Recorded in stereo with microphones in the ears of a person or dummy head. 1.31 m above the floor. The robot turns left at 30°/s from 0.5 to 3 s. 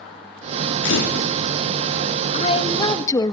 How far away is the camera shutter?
About 4 m.